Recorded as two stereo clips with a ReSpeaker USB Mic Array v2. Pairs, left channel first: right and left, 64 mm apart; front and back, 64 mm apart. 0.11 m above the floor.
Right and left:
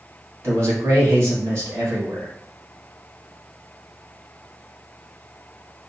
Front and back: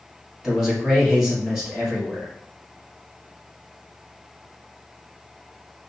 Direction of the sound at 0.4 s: 100° left.